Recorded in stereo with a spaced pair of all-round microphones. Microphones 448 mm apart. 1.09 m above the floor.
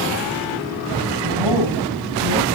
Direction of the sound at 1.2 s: 85° right.